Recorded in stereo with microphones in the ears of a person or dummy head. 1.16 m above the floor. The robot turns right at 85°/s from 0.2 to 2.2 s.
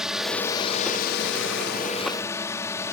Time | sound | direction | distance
0.0 | a drone | 5° right | ?